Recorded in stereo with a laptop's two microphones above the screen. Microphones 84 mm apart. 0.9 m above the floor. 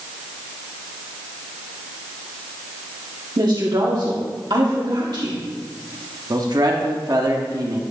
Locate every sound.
3.4 s a woman speaking: 60° right (ahead or behind), 1.9 m
6.3 s a man speaking: 50° right (ahead or behind), 1.3 m